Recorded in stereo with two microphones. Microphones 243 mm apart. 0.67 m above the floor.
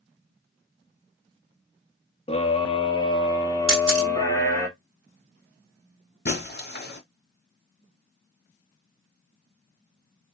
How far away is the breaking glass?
About 1.0 m.